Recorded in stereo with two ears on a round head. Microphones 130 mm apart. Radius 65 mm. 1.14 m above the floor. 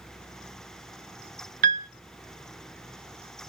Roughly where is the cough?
No cough in this recording.